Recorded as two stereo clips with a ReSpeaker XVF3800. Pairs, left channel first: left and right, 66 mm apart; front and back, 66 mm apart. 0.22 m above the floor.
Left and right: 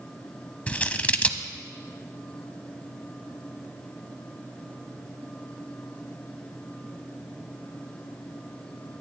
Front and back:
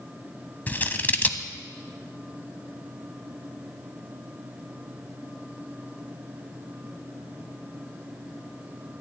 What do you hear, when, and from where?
0.7 s scissors: 35° left, 0.9 m